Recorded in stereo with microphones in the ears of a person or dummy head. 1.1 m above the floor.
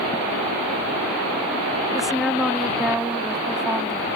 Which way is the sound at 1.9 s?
5° right (ahead or behind).